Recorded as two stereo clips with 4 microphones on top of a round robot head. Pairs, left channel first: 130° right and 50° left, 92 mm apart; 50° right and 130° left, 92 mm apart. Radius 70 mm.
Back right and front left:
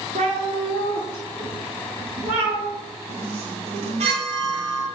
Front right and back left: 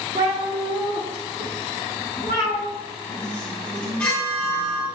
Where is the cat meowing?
70° left, 0.9 m; by 2.6 s 85° left, 4 m.